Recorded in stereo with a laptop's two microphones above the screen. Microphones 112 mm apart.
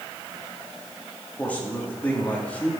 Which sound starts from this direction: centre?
A man speaking, at 1.4 s.